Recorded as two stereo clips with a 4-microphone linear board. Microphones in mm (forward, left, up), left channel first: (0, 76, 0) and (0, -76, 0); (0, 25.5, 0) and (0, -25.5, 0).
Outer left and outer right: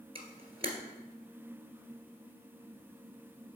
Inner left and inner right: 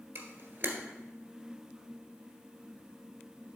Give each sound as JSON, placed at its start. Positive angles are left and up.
{"t": 0.1, "sound": "a camera shutter", "side_deg": -40, "distance_m": 1.6}